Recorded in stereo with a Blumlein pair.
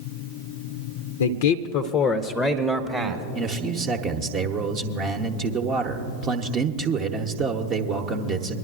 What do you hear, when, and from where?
1.2 s a man speaking: 70° left, 0.6 m; by 3.2 s 15° right, 1.0 m
3.4 s a man speaking: 35° right, 0.8 m